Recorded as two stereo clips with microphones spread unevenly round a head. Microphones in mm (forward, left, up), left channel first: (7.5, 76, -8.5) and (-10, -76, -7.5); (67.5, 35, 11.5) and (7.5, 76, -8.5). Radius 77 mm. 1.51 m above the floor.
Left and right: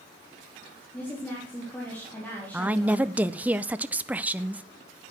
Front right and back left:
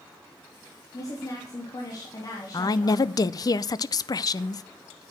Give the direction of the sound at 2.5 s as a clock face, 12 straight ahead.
1 o'clock.